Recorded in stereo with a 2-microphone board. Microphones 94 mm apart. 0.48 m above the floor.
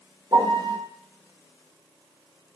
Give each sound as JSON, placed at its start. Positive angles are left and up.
{"t": 0.3, "sound": "a piano", "side_deg": -50, "distance_m": 0.6}